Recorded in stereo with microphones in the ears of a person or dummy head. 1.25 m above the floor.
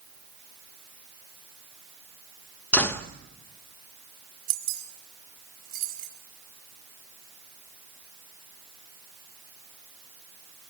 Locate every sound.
2.7 s a door slam: 10° left (ahead or behind), 1.2 m
4.5 s keys jangling: 60° right (ahead or behind), 5 m